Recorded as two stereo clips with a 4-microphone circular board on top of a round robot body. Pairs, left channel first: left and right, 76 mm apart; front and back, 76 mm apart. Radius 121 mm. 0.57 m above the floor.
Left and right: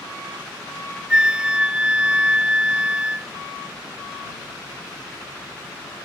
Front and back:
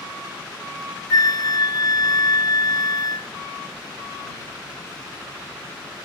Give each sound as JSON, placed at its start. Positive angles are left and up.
{"t": 1.1, "sound": "a flute", "azimuth_deg": -15}